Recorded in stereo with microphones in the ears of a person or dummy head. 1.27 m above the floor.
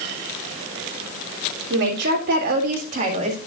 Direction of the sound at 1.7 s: 60° right (ahead or behind).